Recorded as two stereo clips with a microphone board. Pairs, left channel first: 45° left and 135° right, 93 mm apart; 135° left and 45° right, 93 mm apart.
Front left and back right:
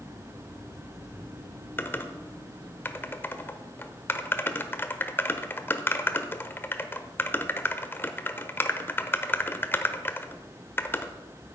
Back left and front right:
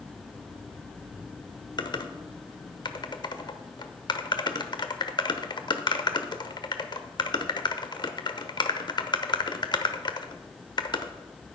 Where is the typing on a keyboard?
110° left, 0.9 m.